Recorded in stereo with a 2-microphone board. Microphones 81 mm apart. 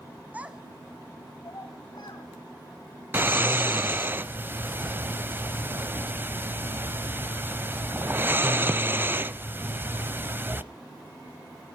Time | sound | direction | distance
0.3 | a child speaking | 20° right (ahead or behind) | 1.3 m
3.1 | snoring | 30° right (ahead or behind) | 0.5 m